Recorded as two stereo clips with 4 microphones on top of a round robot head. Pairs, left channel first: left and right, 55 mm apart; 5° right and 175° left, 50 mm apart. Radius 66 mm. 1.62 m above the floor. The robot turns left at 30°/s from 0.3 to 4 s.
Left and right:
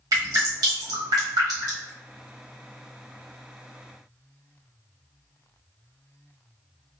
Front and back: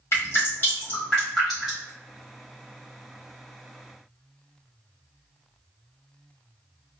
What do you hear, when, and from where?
0.1 s dripping: 60° right, 1.1 m; by 1.9 s 110° right, 1.1 m